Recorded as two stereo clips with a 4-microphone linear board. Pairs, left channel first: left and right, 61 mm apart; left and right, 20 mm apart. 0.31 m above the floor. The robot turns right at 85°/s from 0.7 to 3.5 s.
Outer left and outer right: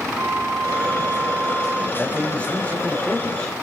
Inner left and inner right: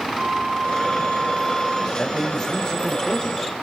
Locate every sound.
0.1 s a flute: 60° right, 5 m; by 1.9 s 40° left, 5 m
2.0 s a man speaking: 10° left (ahead or behind), 1.4 m